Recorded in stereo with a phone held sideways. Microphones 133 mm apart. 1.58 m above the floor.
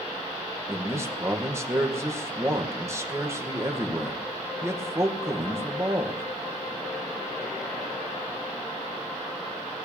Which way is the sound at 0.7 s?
20° right (ahead or behind).